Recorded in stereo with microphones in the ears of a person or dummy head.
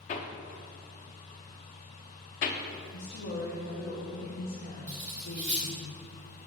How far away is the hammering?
About 0.6 m.